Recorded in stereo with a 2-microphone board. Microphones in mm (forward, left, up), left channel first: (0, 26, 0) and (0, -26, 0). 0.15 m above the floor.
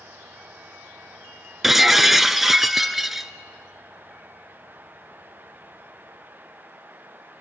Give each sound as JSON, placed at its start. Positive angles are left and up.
{"t": 1.6, "sound": "breaking glass", "side_deg": -5, "distance_m": 0.8}